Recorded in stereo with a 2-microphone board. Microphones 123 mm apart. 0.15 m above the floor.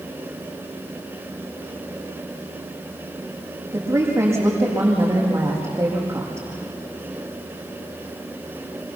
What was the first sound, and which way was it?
A woman speaking, 20° right (ahead or behind).